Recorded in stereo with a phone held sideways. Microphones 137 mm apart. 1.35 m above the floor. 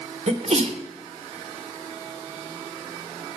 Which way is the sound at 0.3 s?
50° right (ahead or behind).